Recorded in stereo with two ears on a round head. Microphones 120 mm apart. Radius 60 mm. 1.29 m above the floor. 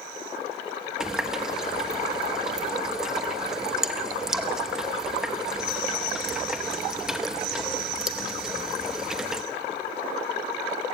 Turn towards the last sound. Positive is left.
turn(degrees=-5)  # may be behind; listen again after turning